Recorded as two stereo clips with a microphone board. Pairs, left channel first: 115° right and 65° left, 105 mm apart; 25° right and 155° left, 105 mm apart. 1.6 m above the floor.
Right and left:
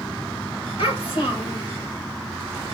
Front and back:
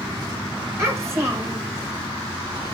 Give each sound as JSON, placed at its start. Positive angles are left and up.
{"t": 0.8, "sound": "a child speaking", "azimuth_deg": -140, "distance_m": 1.6}